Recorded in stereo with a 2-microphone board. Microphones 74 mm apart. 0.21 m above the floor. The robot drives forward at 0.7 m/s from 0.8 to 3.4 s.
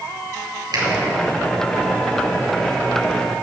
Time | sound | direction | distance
0.7 | a finger snap | 60° right (ahead or behind) | 4 m